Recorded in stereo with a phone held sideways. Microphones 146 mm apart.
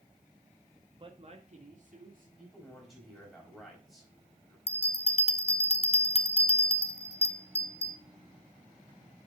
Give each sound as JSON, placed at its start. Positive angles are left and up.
{"t": 1.0, "sound": "a man speaking", "side_deg": -35, "distance_m": 1.4}
{"t": 2.4, "sound": "a man speaking", "side_deg": 0, "distance_m": 5.0}
{"t": 4.7, "sound": "a bell", "side_deg": 40, "distance_m": 0.6}